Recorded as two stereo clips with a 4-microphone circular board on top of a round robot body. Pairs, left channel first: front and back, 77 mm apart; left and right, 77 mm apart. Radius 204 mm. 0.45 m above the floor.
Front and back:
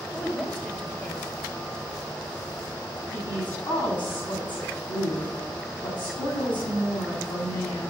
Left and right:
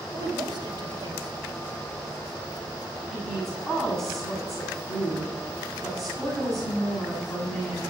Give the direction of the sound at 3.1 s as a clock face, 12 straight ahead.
12 o'clock.